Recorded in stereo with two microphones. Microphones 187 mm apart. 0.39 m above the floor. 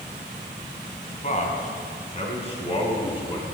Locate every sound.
1.2 s a man speaking: 45° left (ahead or behind), 3 m; by 3.5 s 30° left (ahead or behind), 4 m